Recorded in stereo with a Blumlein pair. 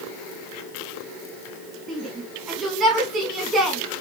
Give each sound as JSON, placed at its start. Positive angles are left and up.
{"t": 1.9, "sound": "a shout", "azimuth_deg": -15, "distance_m": 3.0}